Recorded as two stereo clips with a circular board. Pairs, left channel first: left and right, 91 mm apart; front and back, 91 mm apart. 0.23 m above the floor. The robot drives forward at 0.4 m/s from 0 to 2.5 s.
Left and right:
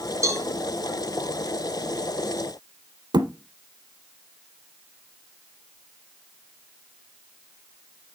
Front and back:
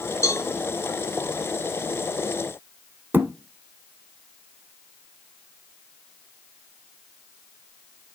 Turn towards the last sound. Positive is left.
turn(degrees=-115)